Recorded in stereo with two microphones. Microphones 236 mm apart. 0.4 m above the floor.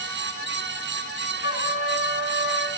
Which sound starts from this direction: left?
A trumpet, at 1.4 s.